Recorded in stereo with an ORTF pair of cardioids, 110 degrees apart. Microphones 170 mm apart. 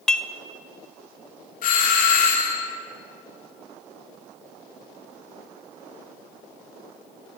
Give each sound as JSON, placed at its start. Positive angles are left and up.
{"t": 0.1, "sound": "dishes clattering", "azimuth_deg": 5, "distance_m": 0.6}
{"t": 1.6, "sound": "a doorbell", "azimuth_deg": 55, "distance_m": 2.5}